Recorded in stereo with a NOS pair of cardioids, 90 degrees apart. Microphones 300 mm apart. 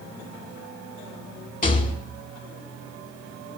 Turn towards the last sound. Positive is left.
turn(degrees=25)